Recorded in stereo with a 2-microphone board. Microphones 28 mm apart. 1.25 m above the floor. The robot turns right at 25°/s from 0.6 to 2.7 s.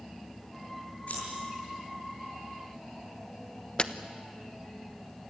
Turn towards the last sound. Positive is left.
turn(degrees=35)  # may be behind; listen again after turning